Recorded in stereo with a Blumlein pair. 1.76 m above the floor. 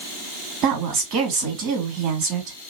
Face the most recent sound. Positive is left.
turn(degrees=-35)